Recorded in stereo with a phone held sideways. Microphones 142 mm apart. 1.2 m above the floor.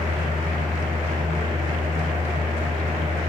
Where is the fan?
45° right (ahead or behind), 1.6 m.